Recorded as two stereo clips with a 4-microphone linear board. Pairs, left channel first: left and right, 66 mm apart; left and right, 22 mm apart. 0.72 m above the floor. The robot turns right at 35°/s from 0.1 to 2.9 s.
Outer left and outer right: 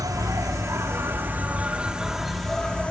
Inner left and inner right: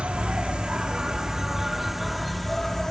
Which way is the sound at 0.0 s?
80° right.